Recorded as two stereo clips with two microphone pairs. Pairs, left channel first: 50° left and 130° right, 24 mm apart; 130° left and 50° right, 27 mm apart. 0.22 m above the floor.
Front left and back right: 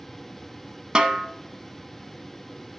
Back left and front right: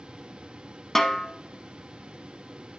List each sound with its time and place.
0.9 s a snare drum: 160° right, 0.8 m